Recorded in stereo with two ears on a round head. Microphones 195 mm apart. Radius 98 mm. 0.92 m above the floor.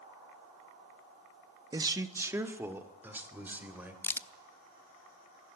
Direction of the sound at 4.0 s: 10° left (ahead or behind).